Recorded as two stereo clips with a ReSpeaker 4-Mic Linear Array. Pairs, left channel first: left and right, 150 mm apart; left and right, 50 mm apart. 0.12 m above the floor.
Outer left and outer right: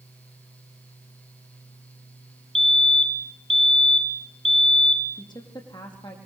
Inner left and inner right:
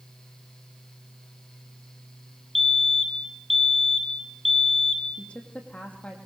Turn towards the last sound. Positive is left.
turn(degrees=30)  # may be behind; listen again after turning